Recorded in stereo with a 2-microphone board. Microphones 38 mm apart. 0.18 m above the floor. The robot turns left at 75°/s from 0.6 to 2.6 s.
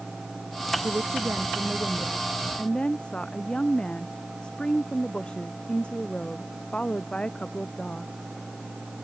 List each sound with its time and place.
0.8 s a woman speaking: 70° right; by 8.1 s 155° left